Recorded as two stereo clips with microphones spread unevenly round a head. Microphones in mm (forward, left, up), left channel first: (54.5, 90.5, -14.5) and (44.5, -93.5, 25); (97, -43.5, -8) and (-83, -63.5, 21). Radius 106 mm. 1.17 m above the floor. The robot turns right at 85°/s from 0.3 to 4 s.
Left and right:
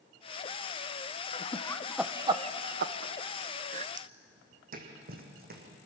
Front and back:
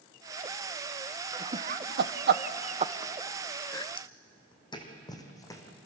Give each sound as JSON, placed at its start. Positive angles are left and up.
{"t": 1.3, "sound": "laughter", "azimuth_deg": 110, "distance_m": 0.8}
{"t": 4.0, "sound": "footsteps", "azimuth_deg": -60, "distance_m": 3.0}